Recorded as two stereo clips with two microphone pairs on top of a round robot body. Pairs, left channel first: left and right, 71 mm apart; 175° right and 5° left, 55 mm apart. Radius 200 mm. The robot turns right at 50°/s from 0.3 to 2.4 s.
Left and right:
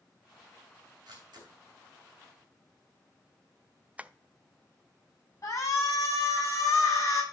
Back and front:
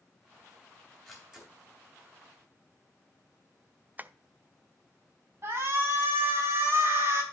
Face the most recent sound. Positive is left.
turn(degrees=45)